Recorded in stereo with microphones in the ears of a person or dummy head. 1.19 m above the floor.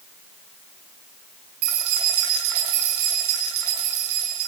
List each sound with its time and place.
1.6 s keys jangling: 80° right, 7.5 m